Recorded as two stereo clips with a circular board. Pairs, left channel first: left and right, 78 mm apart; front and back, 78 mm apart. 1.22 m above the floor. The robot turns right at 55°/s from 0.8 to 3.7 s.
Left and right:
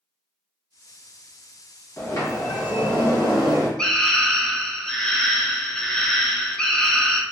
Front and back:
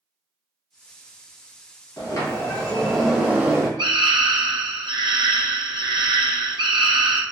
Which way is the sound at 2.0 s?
35° left.